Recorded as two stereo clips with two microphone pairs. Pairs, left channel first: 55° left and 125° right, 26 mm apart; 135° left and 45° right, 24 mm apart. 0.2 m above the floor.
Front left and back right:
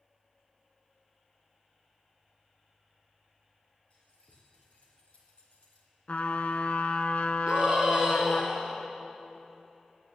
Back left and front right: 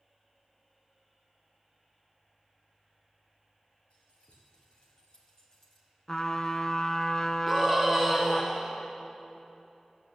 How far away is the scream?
About 2.0 m.